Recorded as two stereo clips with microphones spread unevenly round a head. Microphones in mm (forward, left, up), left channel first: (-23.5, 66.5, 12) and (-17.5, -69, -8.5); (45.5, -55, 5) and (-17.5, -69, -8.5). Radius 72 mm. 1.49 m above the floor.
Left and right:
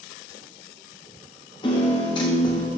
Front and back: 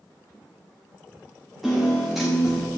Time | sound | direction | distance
1.6 | a piano | 90° left | 1.0 m